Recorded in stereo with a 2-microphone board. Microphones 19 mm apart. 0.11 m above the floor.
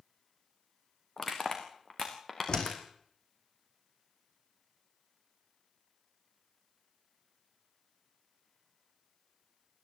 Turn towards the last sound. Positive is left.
turn(degrees=45)  # may be behind; listen again after turning